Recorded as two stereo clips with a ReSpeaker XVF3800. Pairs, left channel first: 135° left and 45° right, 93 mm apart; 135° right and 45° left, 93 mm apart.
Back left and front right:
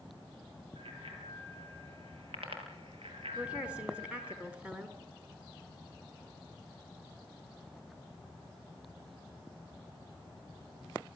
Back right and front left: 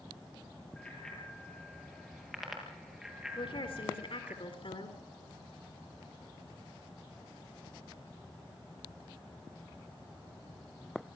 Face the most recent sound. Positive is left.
turn(degrees=-120)